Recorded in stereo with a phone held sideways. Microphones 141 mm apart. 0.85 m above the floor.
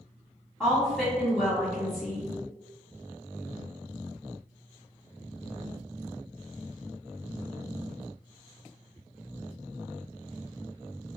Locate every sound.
0.6 s a woman speaking: centre (ahead or behind), 1.7 m